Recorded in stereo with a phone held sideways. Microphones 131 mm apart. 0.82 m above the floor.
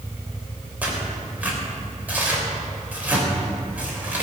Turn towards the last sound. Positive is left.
turn(degrees=-10)  # may be behind; listen again after turning